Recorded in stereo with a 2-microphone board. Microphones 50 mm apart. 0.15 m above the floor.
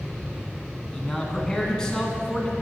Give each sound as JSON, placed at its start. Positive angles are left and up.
{"t": 0.9, "sound": "a man speaking", "side_deg": 15, "distance_m": 1.4}